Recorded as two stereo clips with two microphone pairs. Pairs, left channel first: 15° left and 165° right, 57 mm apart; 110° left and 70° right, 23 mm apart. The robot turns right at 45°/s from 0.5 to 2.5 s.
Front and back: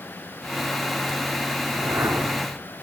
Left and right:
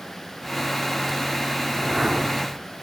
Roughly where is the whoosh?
Behind right.